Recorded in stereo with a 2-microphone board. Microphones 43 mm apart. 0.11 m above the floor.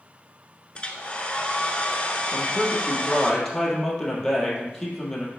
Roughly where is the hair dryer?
Left.